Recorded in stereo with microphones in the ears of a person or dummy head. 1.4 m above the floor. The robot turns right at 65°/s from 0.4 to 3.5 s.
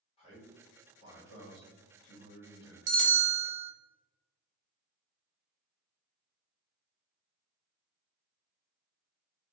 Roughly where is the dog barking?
No dog barking in this recording.